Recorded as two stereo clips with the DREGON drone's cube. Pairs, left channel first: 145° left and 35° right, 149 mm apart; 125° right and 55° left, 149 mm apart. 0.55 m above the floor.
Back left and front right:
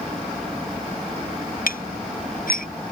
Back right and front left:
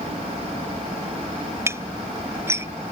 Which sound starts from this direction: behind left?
Dishes clattering, at 1.7 s.